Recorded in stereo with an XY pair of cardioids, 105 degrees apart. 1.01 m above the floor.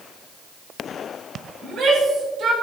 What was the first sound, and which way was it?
A shout, 55° right.